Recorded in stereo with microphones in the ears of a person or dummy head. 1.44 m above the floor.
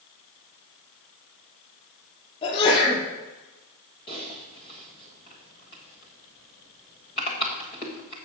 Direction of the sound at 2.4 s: 35° left (ahead or behind).